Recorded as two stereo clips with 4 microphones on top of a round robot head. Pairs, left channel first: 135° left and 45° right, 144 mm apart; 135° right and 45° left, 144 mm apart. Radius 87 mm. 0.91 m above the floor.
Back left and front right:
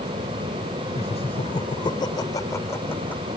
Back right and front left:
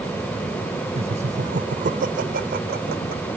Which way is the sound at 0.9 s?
90° left.